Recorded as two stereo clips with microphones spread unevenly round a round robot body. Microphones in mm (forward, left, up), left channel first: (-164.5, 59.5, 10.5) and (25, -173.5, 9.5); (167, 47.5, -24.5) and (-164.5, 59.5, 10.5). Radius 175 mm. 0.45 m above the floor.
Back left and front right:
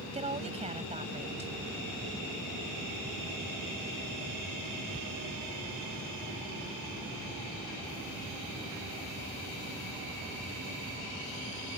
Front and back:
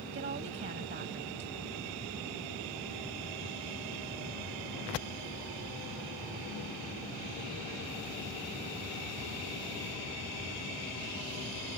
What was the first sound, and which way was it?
A woman speaking, 120° right.